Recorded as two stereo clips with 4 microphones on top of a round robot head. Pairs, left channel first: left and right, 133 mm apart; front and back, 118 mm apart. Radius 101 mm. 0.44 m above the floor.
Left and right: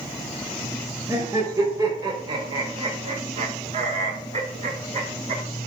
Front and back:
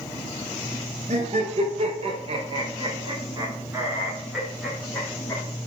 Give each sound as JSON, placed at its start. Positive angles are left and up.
{"t": 1.1, "sound": "laughter", "azimuth_deg": -160, "distance_m": 2.0}